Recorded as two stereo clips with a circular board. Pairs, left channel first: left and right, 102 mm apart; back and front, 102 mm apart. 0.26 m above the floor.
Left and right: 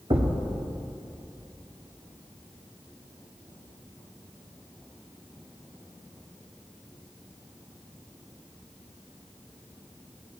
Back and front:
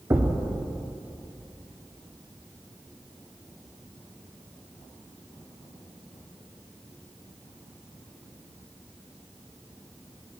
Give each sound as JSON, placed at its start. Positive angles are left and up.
{"t": 0.1, "sound": "a thud", "azimuth_deg": -65, "distance_m": 1.6}